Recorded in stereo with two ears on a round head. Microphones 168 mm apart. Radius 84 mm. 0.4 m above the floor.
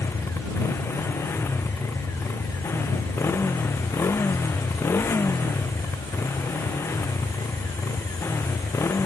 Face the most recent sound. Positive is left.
turn(degrees=10)  # may be behind; listen again after turning